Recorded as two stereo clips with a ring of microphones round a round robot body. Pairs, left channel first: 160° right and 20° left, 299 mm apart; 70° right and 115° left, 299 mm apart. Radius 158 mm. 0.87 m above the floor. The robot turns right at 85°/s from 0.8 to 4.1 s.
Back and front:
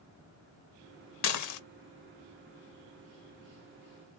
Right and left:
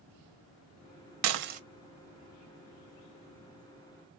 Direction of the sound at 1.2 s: 150° left.